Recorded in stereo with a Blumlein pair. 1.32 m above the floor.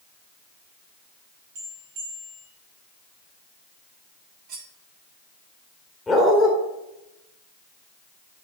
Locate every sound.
1.6 s a bell: 45° right, 3 m
4.5 s cutlery clinking: 40° right, 1.7 m
6.1 s a dog barking: 10° left, 2 m